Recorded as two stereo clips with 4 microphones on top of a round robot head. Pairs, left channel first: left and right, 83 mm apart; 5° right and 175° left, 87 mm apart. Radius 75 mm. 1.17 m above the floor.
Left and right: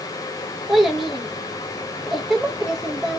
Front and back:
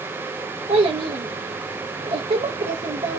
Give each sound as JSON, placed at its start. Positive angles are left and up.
{"t": 0.7, "sound": "a child speaking", "azimuth_deg": 180, "distance_m": 0.6}